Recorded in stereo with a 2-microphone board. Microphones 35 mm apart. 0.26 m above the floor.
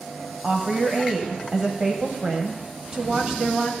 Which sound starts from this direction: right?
A woman speaking, at 0.4 s.